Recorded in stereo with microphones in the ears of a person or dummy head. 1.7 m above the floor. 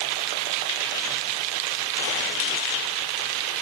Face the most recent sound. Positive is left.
No sound to turn to.